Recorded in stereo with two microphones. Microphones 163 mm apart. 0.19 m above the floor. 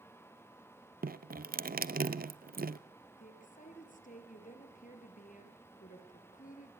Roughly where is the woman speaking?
Left.